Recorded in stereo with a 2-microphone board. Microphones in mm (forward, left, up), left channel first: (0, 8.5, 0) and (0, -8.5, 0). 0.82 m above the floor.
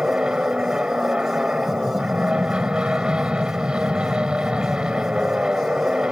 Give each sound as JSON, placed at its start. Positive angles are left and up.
{"t": 0.0, "sound": "an aircraft", "side_deg": -65}